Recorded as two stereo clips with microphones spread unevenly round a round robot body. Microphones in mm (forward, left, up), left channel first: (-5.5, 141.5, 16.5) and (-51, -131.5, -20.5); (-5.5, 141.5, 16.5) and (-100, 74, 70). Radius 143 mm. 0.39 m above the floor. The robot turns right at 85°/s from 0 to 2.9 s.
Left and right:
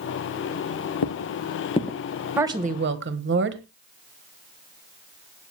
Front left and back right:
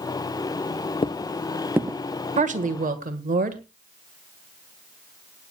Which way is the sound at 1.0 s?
85° left.